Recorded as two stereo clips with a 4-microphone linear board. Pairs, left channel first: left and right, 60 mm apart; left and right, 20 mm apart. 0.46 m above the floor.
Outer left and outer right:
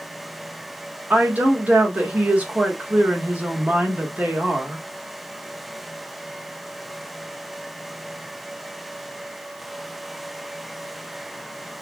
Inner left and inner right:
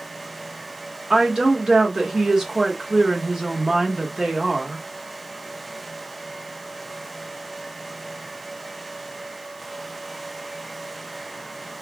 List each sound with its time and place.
1.1 s a woman speaking: 30° right (ahead or behind), 1.0 m